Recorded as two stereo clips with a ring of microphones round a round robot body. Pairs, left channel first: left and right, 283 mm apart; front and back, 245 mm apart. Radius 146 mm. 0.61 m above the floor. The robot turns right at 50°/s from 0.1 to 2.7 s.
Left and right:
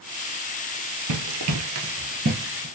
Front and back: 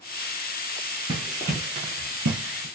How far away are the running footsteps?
About 1.3 m.